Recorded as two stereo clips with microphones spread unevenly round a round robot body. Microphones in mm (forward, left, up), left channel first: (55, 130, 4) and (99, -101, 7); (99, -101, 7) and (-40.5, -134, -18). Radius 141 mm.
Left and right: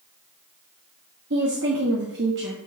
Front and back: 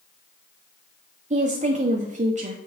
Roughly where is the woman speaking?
Behind right.